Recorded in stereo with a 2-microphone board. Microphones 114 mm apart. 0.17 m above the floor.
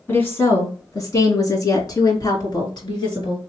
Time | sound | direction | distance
0.1 | a woman speaking | 20° left (ahead or behind) | 1.9 m